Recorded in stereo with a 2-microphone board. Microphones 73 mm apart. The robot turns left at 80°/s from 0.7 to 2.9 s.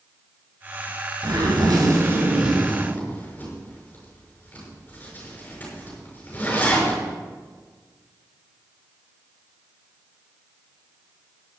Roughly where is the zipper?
Right.